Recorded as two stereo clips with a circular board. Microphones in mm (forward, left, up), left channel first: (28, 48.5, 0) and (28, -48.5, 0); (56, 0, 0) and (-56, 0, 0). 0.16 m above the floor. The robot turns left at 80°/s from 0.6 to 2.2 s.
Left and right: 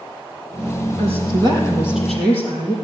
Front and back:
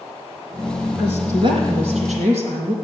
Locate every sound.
1.0 s a woman speaking: 95° right, 4.5 m; by 2.8 s 165° left, 4.5 m